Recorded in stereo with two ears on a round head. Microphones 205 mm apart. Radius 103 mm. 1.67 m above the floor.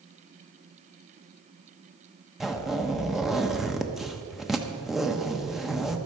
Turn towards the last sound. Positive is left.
turn(degrees=0)  # may be behind; listen again after turning